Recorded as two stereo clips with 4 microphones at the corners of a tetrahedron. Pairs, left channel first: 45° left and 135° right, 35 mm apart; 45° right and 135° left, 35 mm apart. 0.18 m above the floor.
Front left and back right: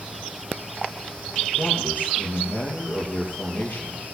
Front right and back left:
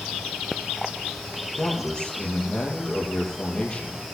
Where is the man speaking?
20° left, 5.5 m.